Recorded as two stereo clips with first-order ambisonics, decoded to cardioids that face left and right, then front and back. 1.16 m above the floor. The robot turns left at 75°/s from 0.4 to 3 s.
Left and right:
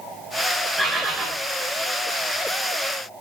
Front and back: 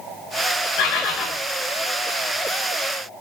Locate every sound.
0.8 s a bird: 5° right, 3 m; by 1.3 s 45° right, 3 m